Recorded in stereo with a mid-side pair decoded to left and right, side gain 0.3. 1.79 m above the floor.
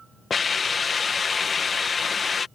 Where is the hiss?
55° left.